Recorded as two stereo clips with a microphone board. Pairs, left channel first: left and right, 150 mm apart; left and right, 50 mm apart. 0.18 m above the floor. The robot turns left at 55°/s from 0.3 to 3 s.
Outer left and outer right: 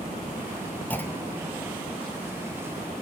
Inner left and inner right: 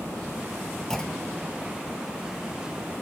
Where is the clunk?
10° left (ahead or behind), 1.4 m; by 1.5 s 20° left (ahead or behind), 1.4 m.